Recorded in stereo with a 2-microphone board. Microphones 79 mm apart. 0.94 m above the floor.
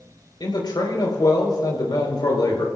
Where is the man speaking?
65° left (ahead or behind), 4 m.